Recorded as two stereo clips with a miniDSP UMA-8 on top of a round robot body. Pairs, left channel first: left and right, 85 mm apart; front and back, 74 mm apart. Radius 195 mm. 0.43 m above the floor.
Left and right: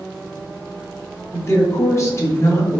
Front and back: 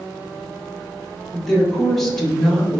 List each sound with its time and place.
1.3 s a woman speaking: 80° left, 1.3 m